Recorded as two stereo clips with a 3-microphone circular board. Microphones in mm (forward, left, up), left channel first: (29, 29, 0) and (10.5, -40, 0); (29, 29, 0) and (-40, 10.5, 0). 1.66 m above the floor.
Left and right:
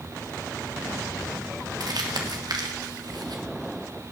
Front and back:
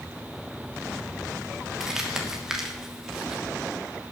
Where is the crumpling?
85° right, 2 m.